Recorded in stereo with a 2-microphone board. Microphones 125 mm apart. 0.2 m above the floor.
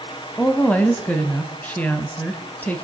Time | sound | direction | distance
0.4 | a woman speaking | 10° left (ahead or behind) | 1.1 m